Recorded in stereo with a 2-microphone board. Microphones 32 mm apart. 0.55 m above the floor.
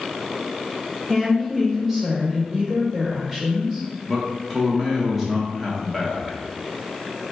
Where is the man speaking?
5° right (ahead or behind), 0.8 m.